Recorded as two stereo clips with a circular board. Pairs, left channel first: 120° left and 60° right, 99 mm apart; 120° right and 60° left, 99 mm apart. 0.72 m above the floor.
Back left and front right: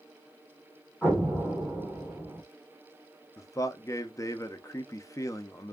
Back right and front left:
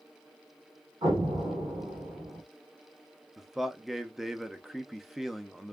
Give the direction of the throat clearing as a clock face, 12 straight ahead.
I don't hear throat clearing.